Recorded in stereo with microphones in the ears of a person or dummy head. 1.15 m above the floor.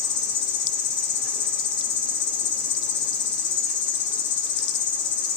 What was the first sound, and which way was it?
An insect, 5° left (ahead or behind).